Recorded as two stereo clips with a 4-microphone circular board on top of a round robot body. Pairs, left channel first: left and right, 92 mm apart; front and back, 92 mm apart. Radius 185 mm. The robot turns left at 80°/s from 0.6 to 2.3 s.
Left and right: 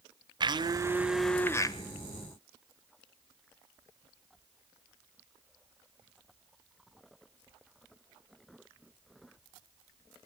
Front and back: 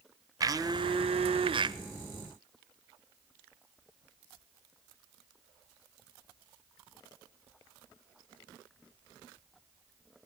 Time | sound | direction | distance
0.4 | a blender | 130° right | 0.7 m